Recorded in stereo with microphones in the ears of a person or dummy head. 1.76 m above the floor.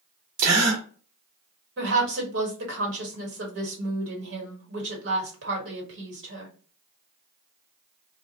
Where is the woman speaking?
65° right (ahead or behind), 1.5 m.